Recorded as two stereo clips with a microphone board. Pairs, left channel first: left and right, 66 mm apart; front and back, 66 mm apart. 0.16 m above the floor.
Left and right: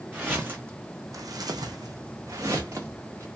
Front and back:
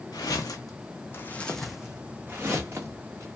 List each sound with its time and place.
0.1 s footsteps: 15° right, 0.8 m; by 3.3 s 135° right, 1.1 m